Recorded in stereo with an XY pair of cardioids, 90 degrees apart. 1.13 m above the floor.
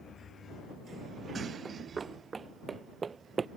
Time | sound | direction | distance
1.6 | running footsteps | 40° right | ?